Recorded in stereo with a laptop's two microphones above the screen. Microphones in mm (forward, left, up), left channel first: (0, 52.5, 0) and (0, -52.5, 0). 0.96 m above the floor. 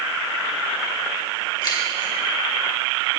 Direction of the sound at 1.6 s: 40° left (ahead or behind).